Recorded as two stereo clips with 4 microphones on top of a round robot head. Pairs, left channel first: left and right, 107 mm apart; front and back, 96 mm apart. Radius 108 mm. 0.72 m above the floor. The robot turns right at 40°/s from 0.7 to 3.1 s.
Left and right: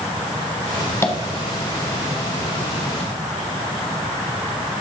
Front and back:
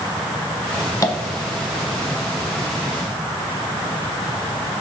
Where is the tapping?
35° left, 1.3 m; by 1.2 s 40° left, 1.3 m.